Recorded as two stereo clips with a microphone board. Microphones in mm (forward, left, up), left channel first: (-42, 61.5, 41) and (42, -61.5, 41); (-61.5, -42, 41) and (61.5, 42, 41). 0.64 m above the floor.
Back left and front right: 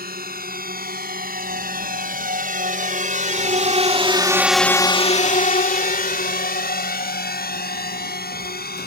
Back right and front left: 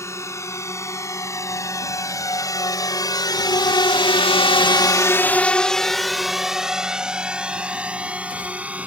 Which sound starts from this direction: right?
A drone, at 0.0 s.